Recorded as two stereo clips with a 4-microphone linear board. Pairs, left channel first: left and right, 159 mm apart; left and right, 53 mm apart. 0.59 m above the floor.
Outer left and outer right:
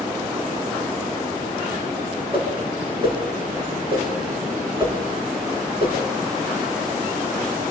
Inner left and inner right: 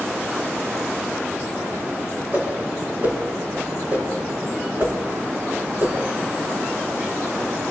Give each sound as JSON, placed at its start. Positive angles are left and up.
{"t": 2.3, "sound": "a whoosh", "side_deg": -35, "distance_m": 6.5}